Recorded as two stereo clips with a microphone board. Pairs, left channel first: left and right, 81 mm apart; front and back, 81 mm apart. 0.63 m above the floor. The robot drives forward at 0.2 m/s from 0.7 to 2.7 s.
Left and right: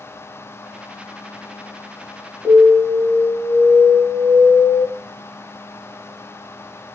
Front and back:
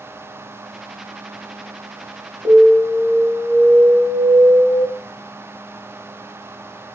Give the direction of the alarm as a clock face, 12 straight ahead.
6 o'clock.